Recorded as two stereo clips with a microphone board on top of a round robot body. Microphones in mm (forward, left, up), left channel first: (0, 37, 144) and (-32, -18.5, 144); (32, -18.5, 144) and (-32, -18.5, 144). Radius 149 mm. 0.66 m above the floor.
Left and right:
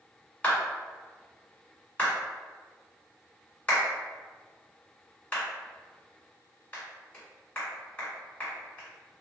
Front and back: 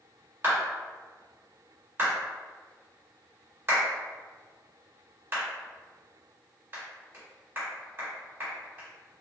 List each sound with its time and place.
0.4 s a clap: 125° left, 2.0 m